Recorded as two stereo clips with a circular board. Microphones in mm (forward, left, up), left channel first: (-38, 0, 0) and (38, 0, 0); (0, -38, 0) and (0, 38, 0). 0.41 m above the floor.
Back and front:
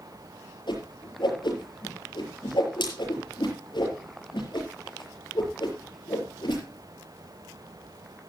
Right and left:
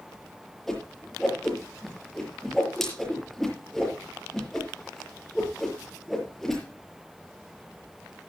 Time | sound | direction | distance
0.7 | a whoosh | 175° right | 6 m